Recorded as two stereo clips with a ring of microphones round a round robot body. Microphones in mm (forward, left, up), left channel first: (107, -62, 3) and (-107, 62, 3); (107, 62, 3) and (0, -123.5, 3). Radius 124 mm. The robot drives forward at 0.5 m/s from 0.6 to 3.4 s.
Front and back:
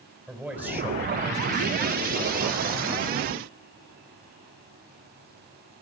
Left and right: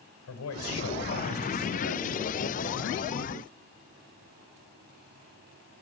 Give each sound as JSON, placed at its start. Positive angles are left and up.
{"t": 0.3, "sound": "a man speaking", "azimuth_deg": 65, "distance_m": 3.0}